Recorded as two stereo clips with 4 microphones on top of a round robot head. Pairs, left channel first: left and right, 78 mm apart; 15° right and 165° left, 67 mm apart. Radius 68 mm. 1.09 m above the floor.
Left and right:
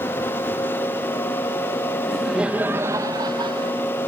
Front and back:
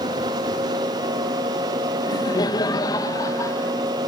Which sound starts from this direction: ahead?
Laughter, at 2.0 s.